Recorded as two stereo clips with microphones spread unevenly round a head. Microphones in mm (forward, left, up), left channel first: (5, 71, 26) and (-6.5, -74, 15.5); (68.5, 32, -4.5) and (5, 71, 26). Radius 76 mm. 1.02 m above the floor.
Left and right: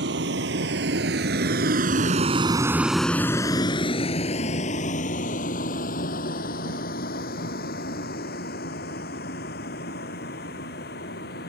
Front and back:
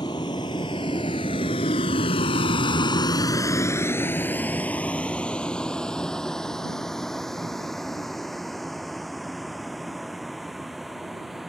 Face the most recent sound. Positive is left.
turn(degrees=60)